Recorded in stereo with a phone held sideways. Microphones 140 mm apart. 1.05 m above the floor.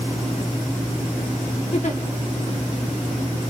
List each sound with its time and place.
1.7 s a giggle: 55° left (ahead or behind), 1.0 m